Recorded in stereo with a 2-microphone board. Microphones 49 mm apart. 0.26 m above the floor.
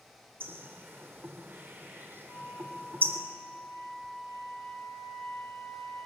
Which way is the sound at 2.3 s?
70° left (ahead or behind).